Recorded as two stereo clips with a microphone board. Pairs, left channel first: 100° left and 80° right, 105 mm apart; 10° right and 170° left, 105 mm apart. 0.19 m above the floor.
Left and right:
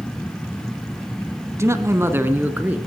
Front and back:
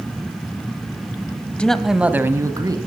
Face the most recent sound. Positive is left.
turn(degrees=-150)